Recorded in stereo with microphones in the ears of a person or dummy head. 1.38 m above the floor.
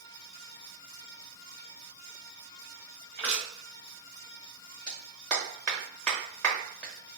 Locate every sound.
3.2 s crushing: 5° left (ahead or behind), 1.4 m
4.9 s a clap: 5° left (ahead or behind), 1.1 m